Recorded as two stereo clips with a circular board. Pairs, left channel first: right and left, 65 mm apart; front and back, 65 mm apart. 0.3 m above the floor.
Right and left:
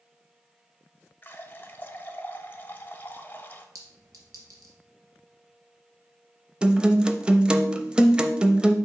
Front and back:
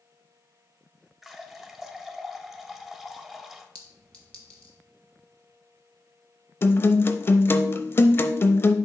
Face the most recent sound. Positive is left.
turn(degrees=25)